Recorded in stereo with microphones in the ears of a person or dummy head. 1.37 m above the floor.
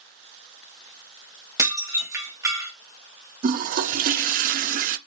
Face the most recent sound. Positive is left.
turn(degrees=-40)  # may be behind; listen again after turning